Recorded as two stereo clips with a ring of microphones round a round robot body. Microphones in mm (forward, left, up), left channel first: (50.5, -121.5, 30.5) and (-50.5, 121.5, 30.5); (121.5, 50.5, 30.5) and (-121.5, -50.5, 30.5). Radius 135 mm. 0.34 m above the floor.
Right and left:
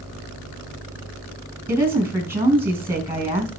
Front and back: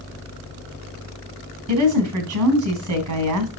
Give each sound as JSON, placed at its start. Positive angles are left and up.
{"t": 1.7, "sound": "a woman speaking", "azimuth_deg": -165, "distance_m": 3.0}